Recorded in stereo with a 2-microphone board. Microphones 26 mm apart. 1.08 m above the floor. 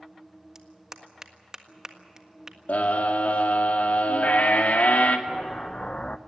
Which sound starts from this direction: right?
A clap, at 0.6 s.